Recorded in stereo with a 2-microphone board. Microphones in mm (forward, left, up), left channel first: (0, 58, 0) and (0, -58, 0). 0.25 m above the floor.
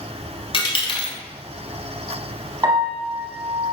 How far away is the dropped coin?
About 0.8 m.